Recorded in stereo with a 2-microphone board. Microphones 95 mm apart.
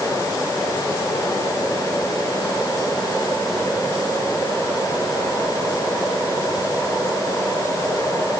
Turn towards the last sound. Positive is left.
No sound to turn to.